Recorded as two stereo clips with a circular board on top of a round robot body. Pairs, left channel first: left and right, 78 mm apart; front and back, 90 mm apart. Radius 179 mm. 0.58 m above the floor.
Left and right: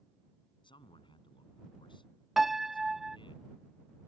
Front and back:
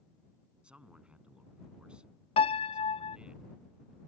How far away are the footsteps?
No footsteps in this recording.